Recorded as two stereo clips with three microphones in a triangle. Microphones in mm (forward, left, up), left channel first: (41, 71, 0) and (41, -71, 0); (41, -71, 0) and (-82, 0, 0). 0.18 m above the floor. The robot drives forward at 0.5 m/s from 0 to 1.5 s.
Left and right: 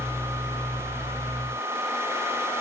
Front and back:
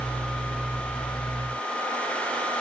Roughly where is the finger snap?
I don't hear a finger snap.